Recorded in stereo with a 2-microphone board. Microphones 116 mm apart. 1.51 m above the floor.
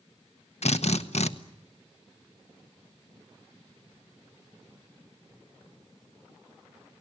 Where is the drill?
70° left (ahead or behind), 1.1 m.